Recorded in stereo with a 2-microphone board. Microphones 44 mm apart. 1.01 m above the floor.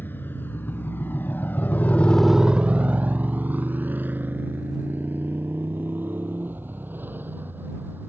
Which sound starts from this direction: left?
A motorcycle, at 0.0 s.